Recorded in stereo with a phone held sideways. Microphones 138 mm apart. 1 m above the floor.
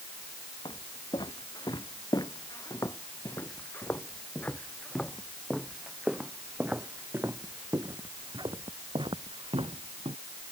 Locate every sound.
0.7 s footsteps: 35° left (ahead or behind); by 10.2 s 50° right (ahead or behind)